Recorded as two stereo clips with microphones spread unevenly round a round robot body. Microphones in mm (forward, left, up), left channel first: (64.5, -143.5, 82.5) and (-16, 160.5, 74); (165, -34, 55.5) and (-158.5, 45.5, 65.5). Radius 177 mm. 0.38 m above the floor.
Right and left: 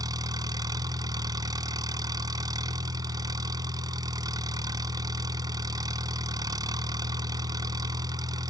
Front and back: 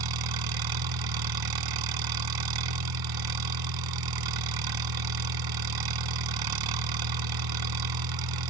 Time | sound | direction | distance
0.0 | an engine running | 175° right | ?